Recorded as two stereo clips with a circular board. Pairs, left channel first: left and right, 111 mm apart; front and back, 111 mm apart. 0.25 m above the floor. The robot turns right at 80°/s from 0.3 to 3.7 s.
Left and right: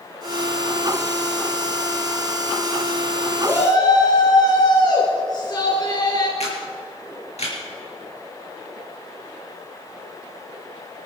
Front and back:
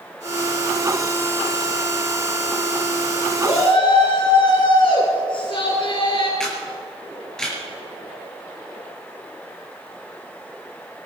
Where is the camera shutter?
85° left, 5 m.